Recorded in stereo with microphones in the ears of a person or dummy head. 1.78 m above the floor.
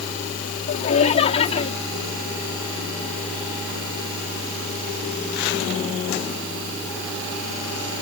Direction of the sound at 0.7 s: 40° left (ahead or behind).